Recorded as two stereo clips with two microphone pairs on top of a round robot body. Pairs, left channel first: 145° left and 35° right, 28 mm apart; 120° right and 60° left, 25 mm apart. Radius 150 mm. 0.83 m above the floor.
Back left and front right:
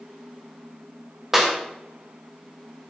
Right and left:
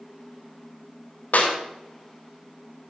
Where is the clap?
120° right, 3 m.